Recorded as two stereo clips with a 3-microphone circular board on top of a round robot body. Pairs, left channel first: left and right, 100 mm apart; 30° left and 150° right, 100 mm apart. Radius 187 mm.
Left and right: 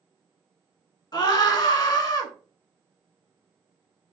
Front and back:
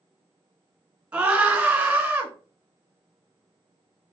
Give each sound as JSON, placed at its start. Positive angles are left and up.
{"t": 1.1, "sound": "a scream", "azimuth_deg": 135, "distance_m": 1.6}